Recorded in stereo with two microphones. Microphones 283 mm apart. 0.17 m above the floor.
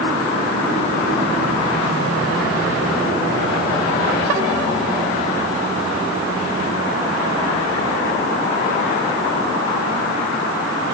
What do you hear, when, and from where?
Only background noise.